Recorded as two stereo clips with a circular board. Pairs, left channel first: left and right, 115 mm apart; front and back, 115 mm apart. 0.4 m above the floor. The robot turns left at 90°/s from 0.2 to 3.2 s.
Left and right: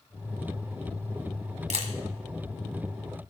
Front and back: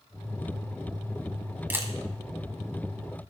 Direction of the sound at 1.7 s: 105° right.